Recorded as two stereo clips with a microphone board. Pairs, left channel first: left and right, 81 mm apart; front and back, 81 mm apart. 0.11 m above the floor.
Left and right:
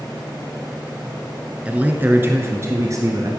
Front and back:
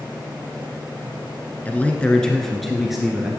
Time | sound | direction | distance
1.6 | a man speaking | 40° right | 1.1 m